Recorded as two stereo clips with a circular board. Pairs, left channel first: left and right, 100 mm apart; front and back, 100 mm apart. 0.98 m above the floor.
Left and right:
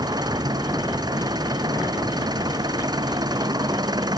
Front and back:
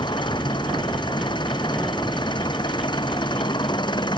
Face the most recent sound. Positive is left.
turn(degrees=-40)